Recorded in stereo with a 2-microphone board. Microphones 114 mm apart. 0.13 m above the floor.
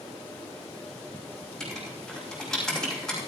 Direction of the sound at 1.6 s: 5° left (ahead or behind).